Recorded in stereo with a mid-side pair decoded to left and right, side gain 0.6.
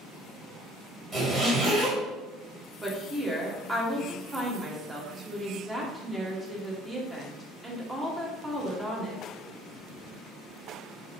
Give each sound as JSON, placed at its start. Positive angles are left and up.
{"t": 1.1, "sound": "a zipper", "azimuth_deg": -20, "distance_m": 1.7}
{"t": 2.8, "sound": "a woman speaking", "azimuth_deg": -15, "distance_m": 1.0}